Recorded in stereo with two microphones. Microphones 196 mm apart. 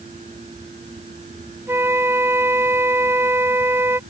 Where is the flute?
10° right (ahead or behind).